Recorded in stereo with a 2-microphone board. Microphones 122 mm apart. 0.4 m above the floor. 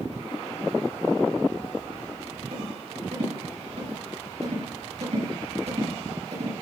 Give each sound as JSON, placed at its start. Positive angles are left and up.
{"t": 2.5, "sound": "a rattle", "side_deg": -60, "distance_m": 5.5}